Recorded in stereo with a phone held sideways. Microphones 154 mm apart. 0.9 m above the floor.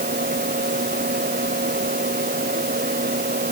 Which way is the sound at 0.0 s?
85° right.